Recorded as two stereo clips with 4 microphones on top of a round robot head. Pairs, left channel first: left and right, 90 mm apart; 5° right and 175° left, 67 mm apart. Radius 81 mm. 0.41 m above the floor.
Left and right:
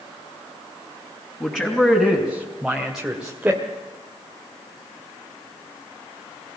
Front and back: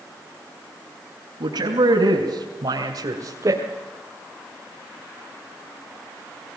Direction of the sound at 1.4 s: 170° left.